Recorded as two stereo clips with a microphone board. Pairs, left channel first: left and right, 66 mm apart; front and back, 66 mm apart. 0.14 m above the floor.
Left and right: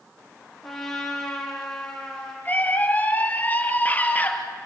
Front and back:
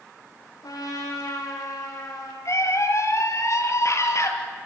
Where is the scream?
30° left, 3.5 m.